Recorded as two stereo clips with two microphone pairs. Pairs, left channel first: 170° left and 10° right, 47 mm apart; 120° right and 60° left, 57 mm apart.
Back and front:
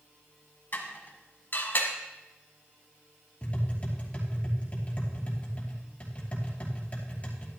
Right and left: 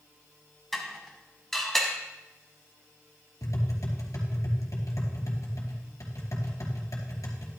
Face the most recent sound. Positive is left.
turn(degrees=-125)